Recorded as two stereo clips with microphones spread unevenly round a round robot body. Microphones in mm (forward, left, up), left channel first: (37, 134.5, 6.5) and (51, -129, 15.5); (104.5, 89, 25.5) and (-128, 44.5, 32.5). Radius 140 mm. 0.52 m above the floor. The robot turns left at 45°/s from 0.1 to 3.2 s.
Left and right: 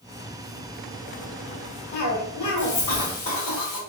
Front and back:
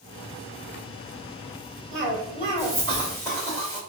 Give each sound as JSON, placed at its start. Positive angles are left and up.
{"t": 1.9, "sound": "a cough", "azimuth_deg": 160, "distance_m": 1.8}